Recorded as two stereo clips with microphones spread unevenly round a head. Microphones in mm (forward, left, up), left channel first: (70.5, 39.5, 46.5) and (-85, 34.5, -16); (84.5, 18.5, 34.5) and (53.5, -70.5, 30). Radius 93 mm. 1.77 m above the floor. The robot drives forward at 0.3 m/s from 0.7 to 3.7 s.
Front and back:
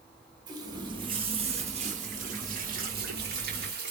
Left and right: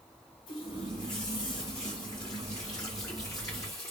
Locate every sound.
0.5 s a running tap: 100° left, 1.0 m; by 3.9 s 145° left, 1.5 m